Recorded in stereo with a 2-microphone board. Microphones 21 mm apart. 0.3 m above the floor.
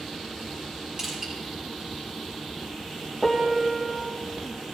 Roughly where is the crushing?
Right.